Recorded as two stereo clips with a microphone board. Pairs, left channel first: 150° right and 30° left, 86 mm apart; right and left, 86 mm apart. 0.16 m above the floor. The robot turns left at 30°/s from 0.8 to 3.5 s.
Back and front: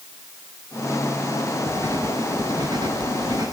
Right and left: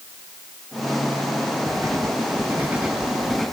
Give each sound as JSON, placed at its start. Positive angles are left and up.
{"t": 1.7, "sound": "writing", "azimuth_deg": 50, "distance_m": 2.5}